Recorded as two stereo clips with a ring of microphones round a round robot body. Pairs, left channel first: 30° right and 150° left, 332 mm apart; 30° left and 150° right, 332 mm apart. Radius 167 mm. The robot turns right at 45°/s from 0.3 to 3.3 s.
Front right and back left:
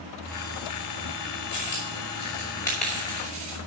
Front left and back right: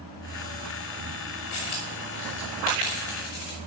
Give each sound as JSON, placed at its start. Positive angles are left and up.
{"t": 1.5, "sound": "a dropped coin", "azimuth_deg": 0, "distance_m": 5.5}